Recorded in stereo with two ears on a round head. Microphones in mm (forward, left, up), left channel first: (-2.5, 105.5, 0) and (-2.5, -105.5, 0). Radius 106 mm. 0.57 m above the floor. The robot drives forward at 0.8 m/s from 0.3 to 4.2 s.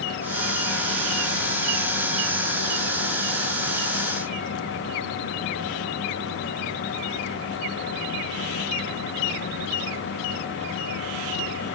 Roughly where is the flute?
I don't hear a flute.